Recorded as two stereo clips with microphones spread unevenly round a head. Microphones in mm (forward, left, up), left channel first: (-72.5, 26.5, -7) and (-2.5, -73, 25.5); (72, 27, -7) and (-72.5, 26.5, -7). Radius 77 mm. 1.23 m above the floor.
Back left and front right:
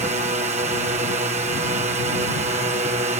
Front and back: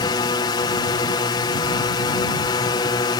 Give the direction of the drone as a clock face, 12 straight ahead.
1 o'clock.